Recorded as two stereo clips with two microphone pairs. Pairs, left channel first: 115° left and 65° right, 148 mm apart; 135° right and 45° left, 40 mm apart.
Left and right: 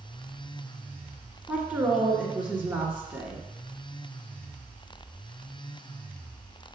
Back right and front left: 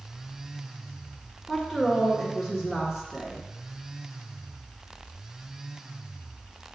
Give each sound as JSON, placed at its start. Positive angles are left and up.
{"t": 1.5, "sound": "a woman speaking", "azimuth_deg": -15, "distance_m": 1.4}